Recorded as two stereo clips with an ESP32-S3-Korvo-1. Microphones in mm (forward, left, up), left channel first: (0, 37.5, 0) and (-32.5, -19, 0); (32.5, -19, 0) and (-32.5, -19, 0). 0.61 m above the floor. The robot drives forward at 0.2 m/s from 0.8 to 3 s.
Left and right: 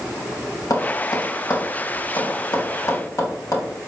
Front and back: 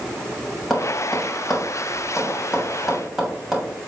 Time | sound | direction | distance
0.7 | tapping | 90° left | 3 m